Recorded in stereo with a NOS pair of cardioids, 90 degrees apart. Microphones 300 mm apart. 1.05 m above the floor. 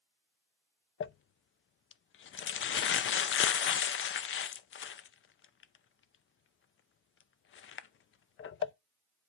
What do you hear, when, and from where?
1.0 s crumpling: 45° left, 0.6 m